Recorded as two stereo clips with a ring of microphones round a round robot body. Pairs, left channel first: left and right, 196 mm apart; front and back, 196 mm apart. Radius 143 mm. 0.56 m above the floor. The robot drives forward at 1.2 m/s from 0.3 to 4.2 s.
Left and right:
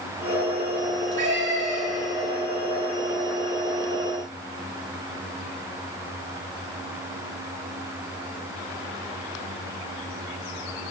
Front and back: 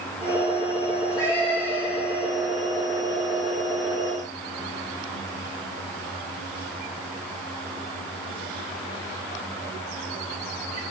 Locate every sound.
0.9 s a cat meowing: 60° right, 3.5 m; by 2.1 s 85° right, 3 m